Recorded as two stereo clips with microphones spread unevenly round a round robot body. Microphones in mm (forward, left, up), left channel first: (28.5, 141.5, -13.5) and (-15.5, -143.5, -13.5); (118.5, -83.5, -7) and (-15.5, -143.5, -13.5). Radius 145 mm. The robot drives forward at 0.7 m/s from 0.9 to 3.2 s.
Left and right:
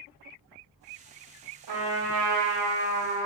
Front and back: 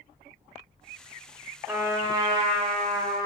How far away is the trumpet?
About 1.0 m.